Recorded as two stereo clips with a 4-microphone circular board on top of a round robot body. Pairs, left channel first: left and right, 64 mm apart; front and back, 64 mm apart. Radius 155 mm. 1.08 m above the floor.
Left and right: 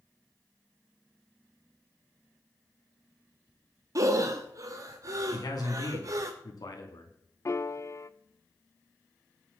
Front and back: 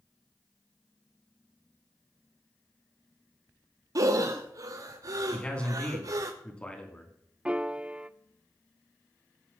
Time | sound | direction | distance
4.0 | breathing | 135° right | 0.6 m
5.3 | a man speaking | 75° left | 3 m
7.5 | a piano | 110° left | 0.7 m